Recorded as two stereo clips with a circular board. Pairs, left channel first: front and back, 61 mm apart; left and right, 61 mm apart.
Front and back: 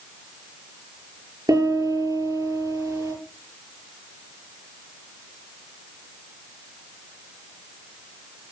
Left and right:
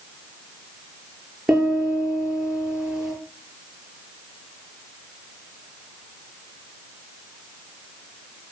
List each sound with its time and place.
1.5 s a piano: 170° right, 9.5 m